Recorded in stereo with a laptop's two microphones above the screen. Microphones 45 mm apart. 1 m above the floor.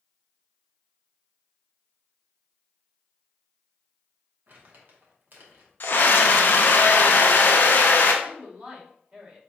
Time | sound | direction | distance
4.5 | crumpling | 50° right (ahead or behind) | 1.0 m
5.8 | a scream | 50° left (ahead or behind) | 0.5 m
8.2 | a woman speaking | 25° right (ahead or behind) | 2.5 m